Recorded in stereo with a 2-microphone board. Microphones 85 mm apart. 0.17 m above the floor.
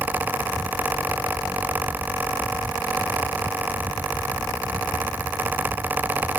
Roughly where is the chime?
No chime in this recording.